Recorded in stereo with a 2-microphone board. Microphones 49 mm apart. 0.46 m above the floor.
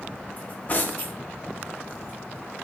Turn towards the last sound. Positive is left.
turn(degrees=35)  # may be behind; listen again after turning